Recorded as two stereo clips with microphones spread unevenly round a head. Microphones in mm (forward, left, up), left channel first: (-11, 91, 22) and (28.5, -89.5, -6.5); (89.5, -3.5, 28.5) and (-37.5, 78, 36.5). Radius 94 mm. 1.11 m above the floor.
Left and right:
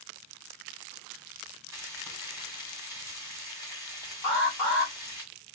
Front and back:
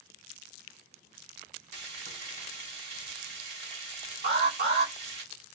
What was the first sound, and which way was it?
Frying, 155° right.